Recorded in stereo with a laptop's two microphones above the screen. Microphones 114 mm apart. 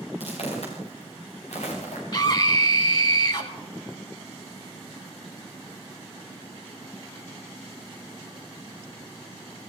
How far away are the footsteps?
About 7 m.